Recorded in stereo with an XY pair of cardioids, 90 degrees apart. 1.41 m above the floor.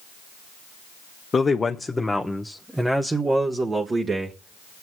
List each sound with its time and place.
1.3 s a man speaking: 40° left, 1.2 m; by 4.8 s 50° right, 2 m